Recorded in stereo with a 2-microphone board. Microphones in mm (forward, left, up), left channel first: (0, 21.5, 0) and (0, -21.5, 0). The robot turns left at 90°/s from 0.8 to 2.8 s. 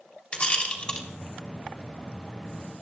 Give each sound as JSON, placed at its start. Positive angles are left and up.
{"t": 0.3, "sound": "a rattle", "side_deg": 25, "distance_m": 3.5}